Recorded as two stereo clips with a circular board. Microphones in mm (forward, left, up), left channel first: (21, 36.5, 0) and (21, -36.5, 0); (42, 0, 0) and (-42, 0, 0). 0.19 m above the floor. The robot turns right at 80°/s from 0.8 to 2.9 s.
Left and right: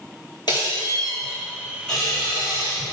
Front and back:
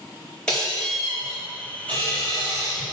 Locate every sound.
0.5 s a squeak: 80° left, 2 m; by 2.8 s 115° right, 2 m